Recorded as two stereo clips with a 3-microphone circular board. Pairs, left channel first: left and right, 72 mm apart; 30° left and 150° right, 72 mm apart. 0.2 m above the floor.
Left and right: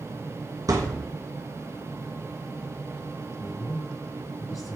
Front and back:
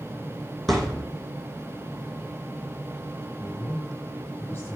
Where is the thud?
55° right, 2.5 m.